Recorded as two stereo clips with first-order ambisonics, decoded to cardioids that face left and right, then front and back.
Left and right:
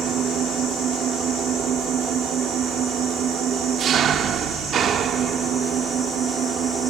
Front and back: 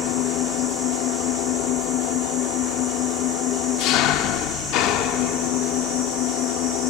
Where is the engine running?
30° right, 1.6 m.